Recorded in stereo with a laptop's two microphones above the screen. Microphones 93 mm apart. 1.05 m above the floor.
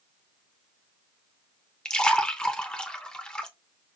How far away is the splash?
About 0.5 m.